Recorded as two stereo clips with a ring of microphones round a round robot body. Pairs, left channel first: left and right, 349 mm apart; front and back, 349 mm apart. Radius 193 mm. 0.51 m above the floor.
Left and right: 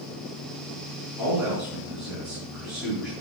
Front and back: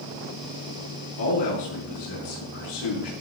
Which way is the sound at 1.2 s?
Straight ahead.